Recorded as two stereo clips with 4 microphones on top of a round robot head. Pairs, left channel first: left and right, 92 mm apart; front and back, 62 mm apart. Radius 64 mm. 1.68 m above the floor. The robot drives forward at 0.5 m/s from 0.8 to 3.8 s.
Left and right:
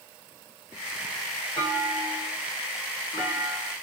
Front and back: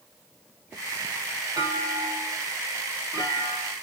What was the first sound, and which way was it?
A clunk, 160° left.